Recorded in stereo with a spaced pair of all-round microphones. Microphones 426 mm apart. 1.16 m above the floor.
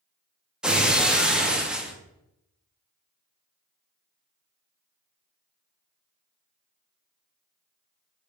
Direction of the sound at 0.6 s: Centre (ahead or behind).